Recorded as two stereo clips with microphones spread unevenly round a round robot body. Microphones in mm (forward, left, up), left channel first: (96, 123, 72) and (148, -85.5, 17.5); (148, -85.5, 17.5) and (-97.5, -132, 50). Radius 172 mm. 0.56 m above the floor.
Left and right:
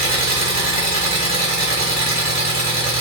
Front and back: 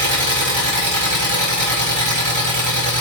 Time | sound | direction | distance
0.0 | an engine running | 175° left | 1.3 m